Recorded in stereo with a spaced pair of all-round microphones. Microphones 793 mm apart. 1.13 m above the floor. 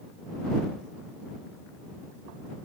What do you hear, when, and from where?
Only background noise.